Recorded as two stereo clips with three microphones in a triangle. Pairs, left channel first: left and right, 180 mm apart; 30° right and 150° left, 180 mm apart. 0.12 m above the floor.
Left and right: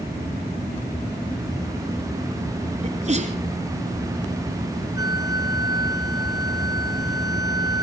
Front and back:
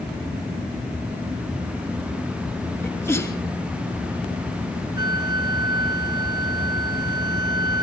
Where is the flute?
150° right, 0.8 m.